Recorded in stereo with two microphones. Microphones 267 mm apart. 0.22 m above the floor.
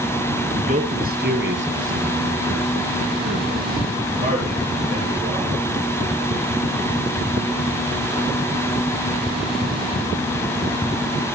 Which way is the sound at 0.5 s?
25° right (ahead or behind).